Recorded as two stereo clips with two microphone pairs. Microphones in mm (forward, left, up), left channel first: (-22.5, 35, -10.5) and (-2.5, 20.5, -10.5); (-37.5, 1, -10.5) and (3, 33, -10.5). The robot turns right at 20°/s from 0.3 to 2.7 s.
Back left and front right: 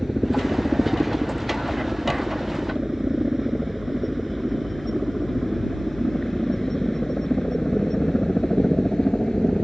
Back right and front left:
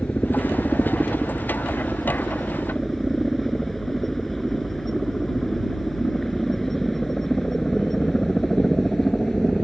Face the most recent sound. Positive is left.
turn(degrees=140)